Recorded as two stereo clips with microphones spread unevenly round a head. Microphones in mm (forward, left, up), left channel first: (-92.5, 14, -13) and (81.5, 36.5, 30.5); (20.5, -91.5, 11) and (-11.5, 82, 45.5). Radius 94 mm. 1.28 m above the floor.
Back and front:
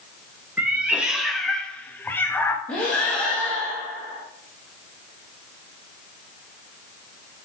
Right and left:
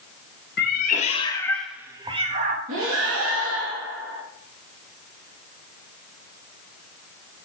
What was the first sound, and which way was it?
A cat meowing, 55° right.